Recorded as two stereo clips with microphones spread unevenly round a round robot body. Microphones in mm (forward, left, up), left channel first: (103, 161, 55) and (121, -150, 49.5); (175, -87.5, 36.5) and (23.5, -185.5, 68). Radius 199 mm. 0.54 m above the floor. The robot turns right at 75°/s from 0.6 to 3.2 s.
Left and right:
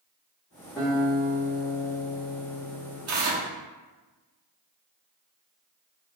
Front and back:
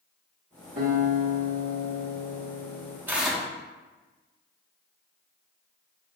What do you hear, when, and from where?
0.8 s a guitar: straight behind, 1.6 m; by 3.0 s 15° right, 1.6 m
3.1 s tearing paper: 60° right, 1.2 m; by 3.5 s 55° right, 1.2 m